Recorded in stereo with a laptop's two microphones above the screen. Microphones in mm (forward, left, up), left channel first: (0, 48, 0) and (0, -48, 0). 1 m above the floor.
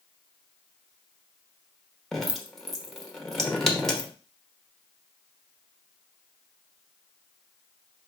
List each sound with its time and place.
2.1 s dripping: 5° left (ahead or behind), 1.0 m